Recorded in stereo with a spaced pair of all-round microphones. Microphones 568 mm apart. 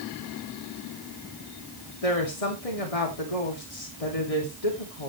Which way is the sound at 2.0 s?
85° left.